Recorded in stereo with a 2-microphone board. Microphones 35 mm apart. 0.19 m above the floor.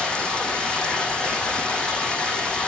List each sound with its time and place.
0.0 s running water: 20° left (ahead or behind), 6 m